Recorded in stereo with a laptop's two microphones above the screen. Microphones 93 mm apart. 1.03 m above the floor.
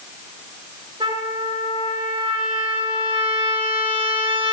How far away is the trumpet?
About 3 m.